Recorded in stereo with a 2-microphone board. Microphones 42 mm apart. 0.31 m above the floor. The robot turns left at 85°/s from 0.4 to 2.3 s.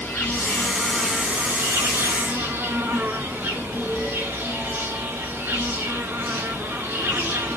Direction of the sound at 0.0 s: 50° left.